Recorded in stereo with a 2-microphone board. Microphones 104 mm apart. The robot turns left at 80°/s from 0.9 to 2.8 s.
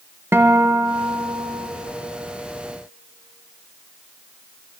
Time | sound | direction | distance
0.3 | a guitar | 25° right | 0.7 m